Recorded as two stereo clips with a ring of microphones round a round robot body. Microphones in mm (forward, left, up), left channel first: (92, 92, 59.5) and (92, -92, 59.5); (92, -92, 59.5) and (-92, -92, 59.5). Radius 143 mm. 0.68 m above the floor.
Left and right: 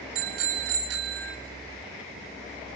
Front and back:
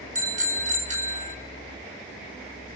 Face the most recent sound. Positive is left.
turn(degrees=-130)